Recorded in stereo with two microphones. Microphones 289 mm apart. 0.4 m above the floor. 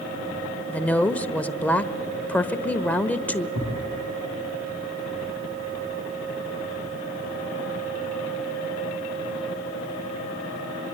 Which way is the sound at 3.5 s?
80° right.